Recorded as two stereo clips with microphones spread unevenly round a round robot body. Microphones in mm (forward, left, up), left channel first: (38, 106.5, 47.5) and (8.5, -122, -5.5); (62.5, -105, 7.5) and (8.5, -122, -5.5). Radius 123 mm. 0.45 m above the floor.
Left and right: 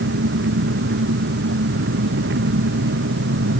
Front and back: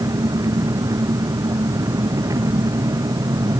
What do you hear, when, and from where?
0.0 s an engine running: 145° right